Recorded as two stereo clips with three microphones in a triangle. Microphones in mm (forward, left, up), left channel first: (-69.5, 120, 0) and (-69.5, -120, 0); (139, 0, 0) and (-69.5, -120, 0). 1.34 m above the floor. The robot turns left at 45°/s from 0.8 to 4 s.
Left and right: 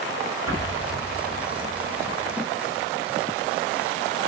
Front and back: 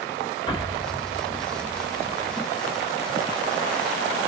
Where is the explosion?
105° left, 3.5 m; by 2.4 s 30° left, 3.5 m.